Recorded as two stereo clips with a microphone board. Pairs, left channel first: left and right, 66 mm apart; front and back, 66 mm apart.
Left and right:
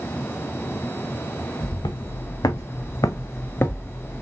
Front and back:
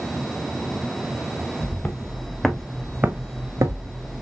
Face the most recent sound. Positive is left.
turn(degrees=165)